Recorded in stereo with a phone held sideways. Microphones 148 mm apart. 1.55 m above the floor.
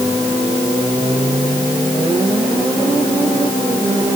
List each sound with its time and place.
Only background noise.